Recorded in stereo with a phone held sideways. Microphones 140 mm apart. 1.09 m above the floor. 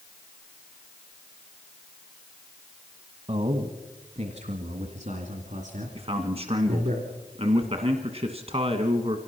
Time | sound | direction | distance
3.3 | a man speaking | 50° right (ahead or behind) | 1.4 m
6.0 | a man speaking | 50° right (ahead or behind) | 1.4 m